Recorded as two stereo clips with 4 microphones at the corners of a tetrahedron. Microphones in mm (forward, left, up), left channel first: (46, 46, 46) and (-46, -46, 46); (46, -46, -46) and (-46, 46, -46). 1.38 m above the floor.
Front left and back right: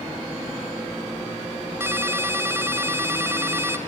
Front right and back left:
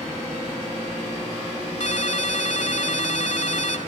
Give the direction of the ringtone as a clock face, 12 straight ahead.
2 o'clock.